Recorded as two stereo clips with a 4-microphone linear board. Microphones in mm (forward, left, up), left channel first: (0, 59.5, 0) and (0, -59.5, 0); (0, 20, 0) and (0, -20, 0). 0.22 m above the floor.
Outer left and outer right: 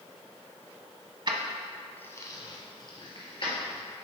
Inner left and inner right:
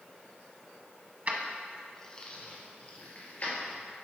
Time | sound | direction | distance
1.3 | keys jangling | 45° right (ahead or behind) | 0.8 m